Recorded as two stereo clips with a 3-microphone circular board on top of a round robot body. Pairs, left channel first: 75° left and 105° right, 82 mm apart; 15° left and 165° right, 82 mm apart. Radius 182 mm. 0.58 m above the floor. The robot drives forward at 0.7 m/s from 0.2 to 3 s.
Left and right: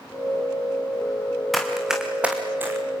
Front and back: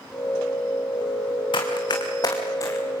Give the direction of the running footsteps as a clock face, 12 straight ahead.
12 o'clock.